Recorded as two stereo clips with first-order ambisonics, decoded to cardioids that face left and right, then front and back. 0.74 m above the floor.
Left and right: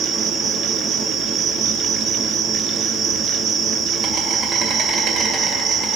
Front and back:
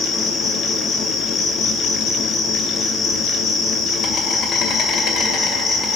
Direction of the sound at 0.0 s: 45° right.